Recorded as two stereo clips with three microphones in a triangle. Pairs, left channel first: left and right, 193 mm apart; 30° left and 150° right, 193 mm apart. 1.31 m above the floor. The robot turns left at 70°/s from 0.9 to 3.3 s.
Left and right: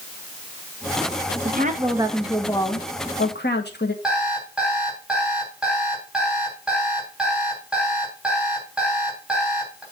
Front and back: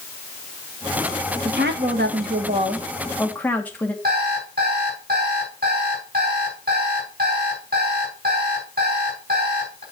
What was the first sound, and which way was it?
A woman speaking, 120° right.